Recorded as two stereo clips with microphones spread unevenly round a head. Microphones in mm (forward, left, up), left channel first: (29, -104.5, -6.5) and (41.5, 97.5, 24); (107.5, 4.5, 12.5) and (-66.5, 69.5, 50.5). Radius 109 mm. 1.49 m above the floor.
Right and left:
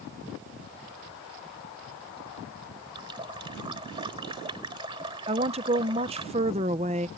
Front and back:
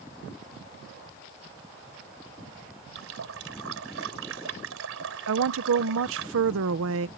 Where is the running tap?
155° left.